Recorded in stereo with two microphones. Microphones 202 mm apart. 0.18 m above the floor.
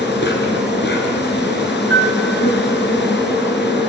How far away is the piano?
About 1.1 m.